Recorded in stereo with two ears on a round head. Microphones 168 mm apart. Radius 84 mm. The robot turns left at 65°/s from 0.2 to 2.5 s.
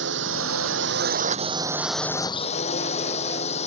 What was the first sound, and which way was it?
A drone, 65° right.